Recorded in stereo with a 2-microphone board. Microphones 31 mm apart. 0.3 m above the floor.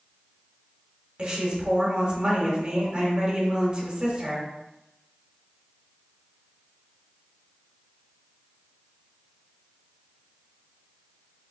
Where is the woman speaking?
35° right (ahead or behind), 1.2 m.